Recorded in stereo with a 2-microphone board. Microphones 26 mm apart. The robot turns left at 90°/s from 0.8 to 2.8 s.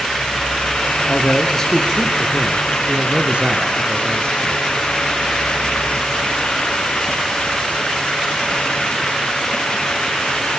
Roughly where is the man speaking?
Left.